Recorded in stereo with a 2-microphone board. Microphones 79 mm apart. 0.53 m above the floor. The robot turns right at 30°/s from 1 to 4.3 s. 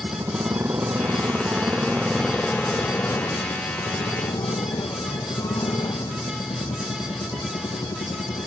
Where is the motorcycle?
35° right; by 8.5 s 65° left.